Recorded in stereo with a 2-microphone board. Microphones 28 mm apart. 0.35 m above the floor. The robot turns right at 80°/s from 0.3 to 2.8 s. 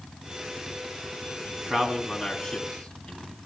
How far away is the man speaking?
About 2.5 m.